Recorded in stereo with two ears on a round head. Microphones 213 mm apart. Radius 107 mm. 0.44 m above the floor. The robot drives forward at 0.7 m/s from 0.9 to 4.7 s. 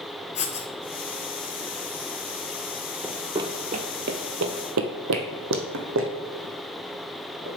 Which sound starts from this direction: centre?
Running footsteps, at 3.0 s.